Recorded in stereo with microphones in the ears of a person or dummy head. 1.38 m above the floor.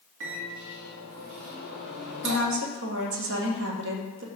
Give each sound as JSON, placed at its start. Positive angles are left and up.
{"t": 0.2, "sound": "a microwave", "side_deg": -75, "distance_m": 2.0}
{"t": 2.2, "sound": "a woman speaking", "side_deg": -70, "distance_m": 1.6}